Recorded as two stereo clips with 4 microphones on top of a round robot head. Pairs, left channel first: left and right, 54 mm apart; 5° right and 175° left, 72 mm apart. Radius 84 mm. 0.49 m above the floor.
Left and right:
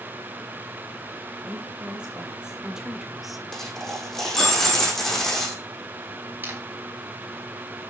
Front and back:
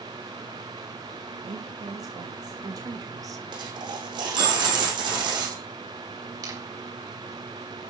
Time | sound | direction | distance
1.4 | a woman speaking | 160° right | 4 m
3.5 | a dropped coin | 175° left | 7 m
6.4 | a camera shutter | 145° right | 5 m